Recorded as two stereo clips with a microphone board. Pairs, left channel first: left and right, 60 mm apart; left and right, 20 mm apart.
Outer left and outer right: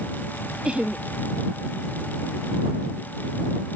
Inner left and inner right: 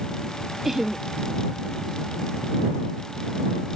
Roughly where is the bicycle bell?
I don't hear a bicycle bell.